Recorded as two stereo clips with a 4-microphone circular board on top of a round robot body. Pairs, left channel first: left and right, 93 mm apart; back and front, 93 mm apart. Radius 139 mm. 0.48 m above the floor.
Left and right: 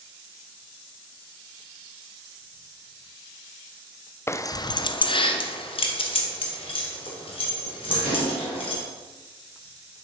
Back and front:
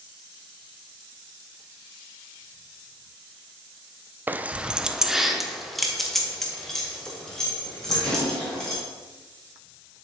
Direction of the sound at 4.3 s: 50° left.